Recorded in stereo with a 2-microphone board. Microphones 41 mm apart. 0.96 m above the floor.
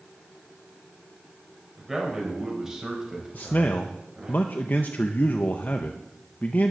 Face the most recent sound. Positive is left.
turn(degrees=45)  # may be behind; listen again after turning